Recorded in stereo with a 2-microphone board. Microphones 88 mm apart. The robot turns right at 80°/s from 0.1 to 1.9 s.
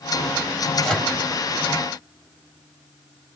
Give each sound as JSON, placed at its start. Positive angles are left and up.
{"t": 0.8, "sound": "a microwave", "side_deg": 0, "distance_m": 2.0}